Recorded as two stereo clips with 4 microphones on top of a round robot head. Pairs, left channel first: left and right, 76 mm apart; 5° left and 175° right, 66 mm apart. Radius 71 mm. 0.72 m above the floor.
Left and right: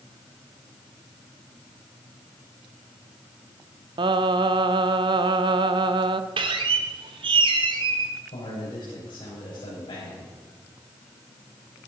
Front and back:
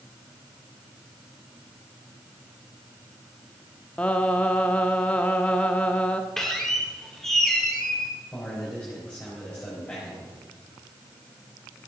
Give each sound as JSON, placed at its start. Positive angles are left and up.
{"t": 4.0, "sound": "singing", "azimuth_deg": -70, "distance_m": 0.6}
{"t": 6.4, "sound": "a squeak", "azimuth_deg": -80, "distance_m": 1.3}
{"t": 8.3, "sound": "a man speaking", "azimuth_deg": 80, "distance_m": 4.5}